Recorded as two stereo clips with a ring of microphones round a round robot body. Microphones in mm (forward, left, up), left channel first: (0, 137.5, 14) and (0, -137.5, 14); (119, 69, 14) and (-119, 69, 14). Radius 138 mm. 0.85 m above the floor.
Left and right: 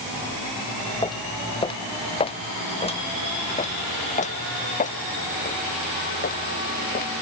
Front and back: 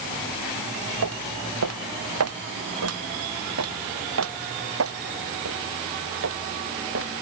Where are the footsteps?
165° left; by 7.1 s 150° left.